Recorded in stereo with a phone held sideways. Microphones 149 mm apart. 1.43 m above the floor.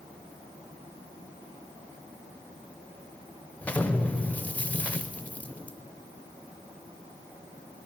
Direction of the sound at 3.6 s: 10° left (ahead or behind).